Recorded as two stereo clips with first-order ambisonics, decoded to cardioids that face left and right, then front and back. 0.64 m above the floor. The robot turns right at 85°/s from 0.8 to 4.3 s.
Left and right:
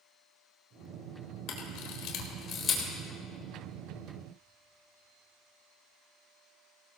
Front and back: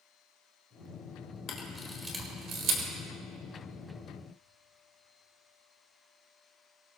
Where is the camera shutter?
50° left, 3 m; by 2.9 s 170° left, 3 m.